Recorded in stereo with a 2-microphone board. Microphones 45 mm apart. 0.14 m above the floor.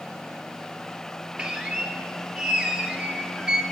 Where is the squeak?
20° right (ahead or behind), 1.6 m.